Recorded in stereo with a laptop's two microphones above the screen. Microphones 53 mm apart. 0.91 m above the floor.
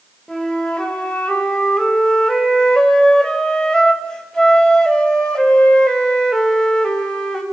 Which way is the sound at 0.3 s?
15° left (ahead or behind).